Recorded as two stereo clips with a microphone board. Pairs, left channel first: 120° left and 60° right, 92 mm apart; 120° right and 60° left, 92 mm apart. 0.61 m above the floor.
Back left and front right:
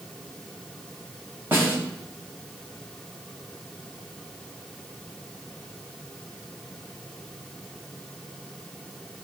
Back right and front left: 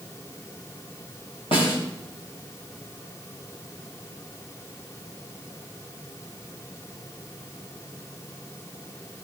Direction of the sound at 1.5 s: 130° right.